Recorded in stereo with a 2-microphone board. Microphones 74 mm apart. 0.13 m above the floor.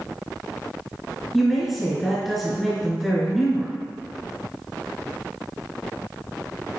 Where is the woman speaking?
Centre (ahead or behind), 1.5 m.